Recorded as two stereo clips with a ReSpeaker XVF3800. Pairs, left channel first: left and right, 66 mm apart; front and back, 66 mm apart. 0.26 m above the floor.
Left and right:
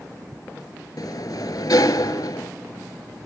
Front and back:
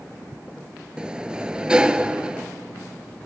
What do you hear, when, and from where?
1.0 s a sliding door: 105° left, 0.6 m